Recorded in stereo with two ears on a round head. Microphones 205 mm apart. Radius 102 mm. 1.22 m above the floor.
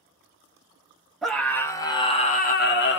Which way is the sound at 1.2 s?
Centre (ahead or behind).